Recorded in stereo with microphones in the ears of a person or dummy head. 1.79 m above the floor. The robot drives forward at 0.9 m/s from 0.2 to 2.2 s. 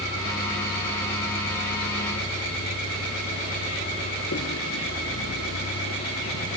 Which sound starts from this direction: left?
A vehicle, at 0.0 s.